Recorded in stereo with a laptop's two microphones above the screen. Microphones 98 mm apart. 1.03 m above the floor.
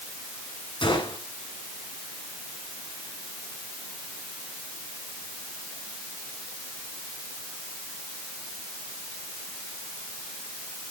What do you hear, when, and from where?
0.8 s a gunshot: 55° left (ahead or behind), 6.5 m